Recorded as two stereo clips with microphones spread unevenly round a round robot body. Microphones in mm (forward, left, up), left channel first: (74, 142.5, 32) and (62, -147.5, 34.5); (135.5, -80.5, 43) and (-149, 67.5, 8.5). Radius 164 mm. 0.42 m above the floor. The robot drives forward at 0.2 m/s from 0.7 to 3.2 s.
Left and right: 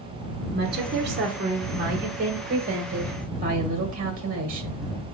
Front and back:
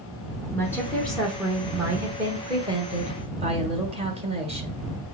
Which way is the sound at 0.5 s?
115° right.